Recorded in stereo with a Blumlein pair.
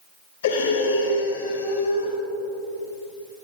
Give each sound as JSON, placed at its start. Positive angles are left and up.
{"t": 0.4, "sound": "breathing", "azimuth_deg": 65, "distance_m": 6.5}